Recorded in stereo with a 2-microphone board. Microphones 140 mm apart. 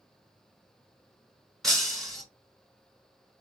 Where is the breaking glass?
5° left (ahead or behind), 2.5 m.